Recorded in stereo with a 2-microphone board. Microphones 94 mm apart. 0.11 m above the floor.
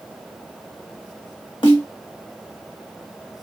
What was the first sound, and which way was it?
A snare drum, 60° left (ahead or behind).